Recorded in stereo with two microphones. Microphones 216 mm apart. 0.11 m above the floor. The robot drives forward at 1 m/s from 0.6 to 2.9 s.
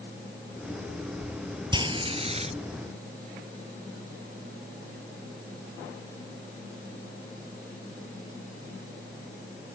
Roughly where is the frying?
Right.